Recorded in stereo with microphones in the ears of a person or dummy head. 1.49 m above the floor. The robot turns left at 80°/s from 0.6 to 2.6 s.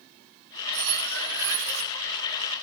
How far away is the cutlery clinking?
About 1.7 m.